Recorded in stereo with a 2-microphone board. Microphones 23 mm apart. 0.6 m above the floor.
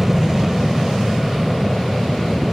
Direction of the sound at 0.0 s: 15° right (ahead or behind).